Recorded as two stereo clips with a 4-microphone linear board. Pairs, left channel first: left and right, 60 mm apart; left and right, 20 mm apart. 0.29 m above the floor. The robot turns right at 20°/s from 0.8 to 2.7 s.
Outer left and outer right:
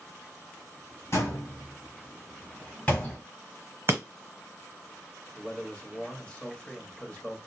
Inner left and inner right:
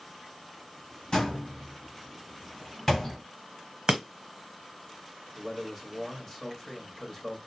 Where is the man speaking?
20° left (ahead or behind), 1.1 m.